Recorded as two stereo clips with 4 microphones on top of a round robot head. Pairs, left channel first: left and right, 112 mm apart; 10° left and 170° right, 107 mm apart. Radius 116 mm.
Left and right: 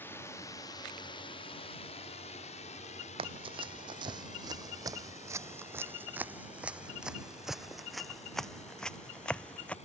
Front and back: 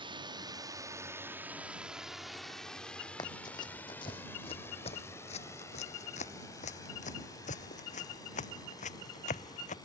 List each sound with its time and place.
0.0 s a drone: 160° left; by 9.9 s 65° left
3.2 s running footsteps: 55° right; by 9.8 s 10° left